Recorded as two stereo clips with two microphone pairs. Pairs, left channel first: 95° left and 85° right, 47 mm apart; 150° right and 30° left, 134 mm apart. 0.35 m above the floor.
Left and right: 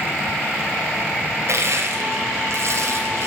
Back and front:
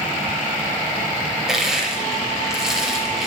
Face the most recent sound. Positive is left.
turn(degrees=-55)